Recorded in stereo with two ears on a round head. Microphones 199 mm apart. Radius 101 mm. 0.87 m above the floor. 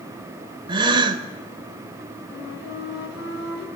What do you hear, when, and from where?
0.7 s a gasp: 25° right (ahead or behind), 1.9 m
2.3 s a flute: 65° left (ahead or behind), 4 m